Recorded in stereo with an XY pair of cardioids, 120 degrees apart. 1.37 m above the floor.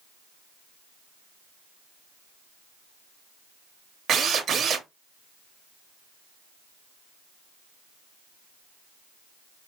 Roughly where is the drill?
Ahead right.